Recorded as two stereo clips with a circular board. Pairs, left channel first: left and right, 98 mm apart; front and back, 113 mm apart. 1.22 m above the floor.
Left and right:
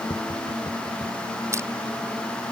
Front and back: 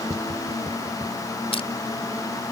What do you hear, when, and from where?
0.1 s tapping: 125° left
1.5 s crushing: 30° right